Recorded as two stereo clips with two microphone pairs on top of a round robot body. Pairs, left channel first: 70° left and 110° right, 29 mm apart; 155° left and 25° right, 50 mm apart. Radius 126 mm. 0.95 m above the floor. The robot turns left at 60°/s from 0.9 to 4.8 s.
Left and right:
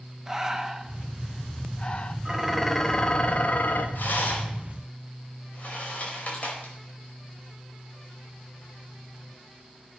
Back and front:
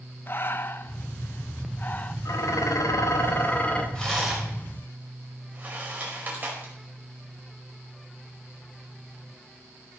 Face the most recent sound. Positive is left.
turn(degrees=30)